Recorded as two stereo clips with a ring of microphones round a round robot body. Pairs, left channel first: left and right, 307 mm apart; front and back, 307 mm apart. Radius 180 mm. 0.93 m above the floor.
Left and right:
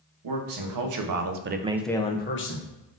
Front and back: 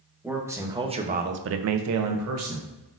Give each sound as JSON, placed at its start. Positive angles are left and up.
{"t": 0.2, "sound": "a man speaking", "azimuth_deg": -95, "distance_m": 1.2}